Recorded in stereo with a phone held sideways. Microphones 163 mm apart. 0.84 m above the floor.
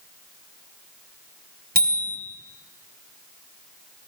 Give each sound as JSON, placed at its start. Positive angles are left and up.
{"t": 1.8, "sound": "a bicycle bell", "side_deg": -75, "distance_m": 3.0}